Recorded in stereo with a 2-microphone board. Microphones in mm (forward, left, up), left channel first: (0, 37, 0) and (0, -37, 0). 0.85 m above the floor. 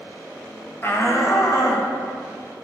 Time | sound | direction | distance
0.8 | a shout | 30° left (ahead or behind) | 1.1 m